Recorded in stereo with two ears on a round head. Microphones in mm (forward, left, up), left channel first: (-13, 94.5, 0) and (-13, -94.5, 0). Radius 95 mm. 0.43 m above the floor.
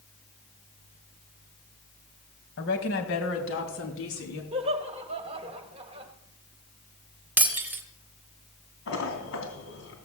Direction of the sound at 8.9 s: 70° left (ahead or behind).